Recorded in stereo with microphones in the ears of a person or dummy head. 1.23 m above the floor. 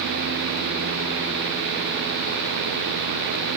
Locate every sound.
Only background noise.